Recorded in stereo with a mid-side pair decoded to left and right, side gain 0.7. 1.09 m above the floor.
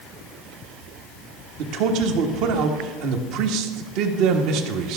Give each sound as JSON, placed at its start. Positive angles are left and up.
{"t": 1.6, "sound": "a man speaking", "azimuth_deg": -60, "distance_m": 1.3}